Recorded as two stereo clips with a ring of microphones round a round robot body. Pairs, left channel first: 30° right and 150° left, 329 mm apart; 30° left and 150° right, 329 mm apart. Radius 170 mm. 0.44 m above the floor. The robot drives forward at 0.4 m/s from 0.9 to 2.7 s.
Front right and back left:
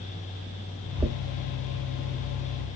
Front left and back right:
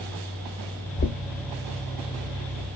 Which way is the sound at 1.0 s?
70° left.